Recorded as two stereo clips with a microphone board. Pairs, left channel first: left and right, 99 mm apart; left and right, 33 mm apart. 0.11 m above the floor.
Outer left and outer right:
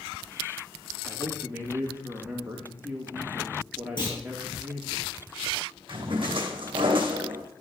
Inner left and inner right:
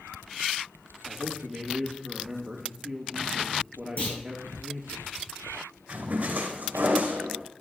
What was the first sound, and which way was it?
A man speaking, 15° right (ahead or behind).